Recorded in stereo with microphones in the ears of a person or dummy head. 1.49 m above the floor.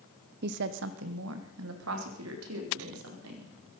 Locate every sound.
0.4 s a woman speaking: 50° right (ahead or behind), 0.9 m; by 3.5 s 85° right, 5 m